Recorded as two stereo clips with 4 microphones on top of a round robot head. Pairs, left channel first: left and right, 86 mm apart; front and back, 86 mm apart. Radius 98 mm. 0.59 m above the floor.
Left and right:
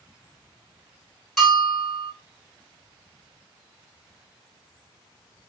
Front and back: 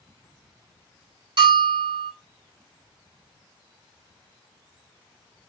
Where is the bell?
175° left, 2.5 m.